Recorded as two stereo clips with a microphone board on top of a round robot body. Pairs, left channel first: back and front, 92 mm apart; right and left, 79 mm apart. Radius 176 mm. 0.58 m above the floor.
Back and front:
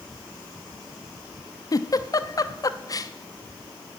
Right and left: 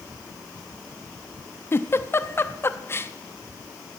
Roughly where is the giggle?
Behind right.